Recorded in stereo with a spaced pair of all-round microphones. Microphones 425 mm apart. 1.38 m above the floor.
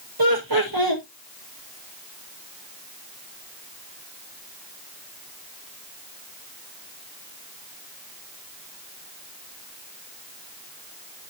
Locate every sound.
0.2 s laughter: 55° right (ahead or behind), 1.3 m